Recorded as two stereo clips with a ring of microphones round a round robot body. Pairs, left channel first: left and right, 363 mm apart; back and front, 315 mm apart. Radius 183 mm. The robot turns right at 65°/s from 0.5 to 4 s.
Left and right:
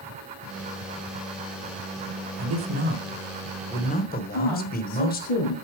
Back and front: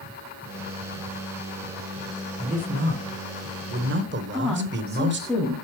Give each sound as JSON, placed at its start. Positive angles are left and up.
{"t": 2.4, "sound": "a man speaking", "azimuth_deg": -70, "distance_m": 1.4}
{"t": 4.3, "sound": "a woman speaking", "azimuth_deg": 95, "distance_m": 2.5}